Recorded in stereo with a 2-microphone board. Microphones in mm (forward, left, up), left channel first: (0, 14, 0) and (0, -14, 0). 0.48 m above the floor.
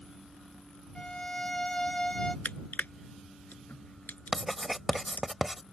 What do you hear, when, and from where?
0.9 s a violin: 35° left (ahead or behind)
2.5 s crushing: 80° left
4.3 s writing: 5° right (ahead or behind)